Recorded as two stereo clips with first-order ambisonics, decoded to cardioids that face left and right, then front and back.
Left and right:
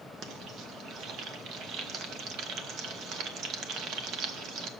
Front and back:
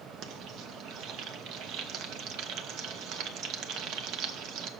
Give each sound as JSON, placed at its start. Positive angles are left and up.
{"t": 0.2, "sound": "frying", "azimuth_deg": -140, "distance_m": 0.8}